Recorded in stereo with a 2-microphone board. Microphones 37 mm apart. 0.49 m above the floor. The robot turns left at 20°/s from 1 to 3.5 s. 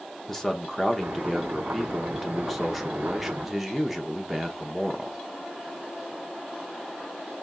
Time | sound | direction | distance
0.3 | a man speaking | 5° left (ahead or behind) | 0.9 m